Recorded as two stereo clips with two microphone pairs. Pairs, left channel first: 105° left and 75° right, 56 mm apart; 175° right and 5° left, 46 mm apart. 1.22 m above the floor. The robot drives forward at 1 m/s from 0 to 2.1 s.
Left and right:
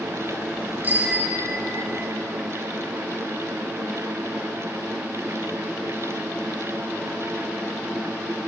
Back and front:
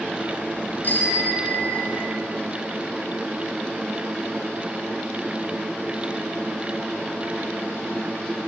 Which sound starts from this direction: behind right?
A bicycle bell, at 0.8 s.